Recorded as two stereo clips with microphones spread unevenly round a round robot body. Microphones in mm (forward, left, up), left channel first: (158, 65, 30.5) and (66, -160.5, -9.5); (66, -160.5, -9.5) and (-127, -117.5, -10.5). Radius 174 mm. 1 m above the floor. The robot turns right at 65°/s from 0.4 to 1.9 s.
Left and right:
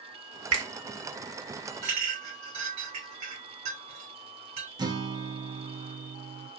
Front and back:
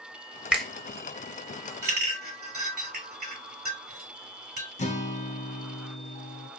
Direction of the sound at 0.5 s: 105° right.